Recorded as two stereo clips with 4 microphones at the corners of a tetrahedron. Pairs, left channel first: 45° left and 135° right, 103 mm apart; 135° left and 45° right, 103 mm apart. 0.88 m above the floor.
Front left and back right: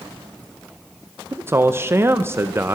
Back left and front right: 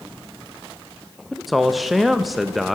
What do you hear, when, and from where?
1.3 s a man speaking: 135° right, 0.5 m